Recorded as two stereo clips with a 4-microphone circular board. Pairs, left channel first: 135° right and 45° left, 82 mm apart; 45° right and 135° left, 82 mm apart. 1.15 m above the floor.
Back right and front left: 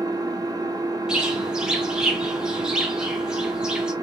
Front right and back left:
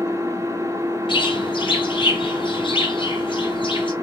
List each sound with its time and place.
0.0 s an engine running: 80° left, 0.7 m
1.1 s a bird: 40° right, 0.8 m